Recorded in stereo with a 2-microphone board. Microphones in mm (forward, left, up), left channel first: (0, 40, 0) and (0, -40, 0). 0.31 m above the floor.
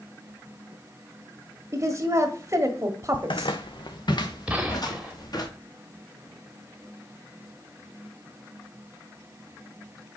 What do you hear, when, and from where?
1.7 s a woman speaking: 35° right (ahead or behind), 1.6 m
3.1 s footsteps: 70° left (ahead or behind), 0.8 m; by 5.5 s 50° left (ahead or behind), 2.5 m
4.5 s a gunshot: 15° right (ahead or behind), 1.4 m